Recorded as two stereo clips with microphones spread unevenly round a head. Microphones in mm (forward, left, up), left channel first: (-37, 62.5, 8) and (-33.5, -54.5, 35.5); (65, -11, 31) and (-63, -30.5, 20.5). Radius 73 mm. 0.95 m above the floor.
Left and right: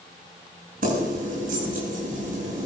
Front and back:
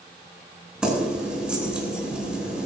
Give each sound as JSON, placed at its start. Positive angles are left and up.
{"t": 0.8, "sound": "keys jangling", "azimuth_deg": -90, "distance_m": 9.0}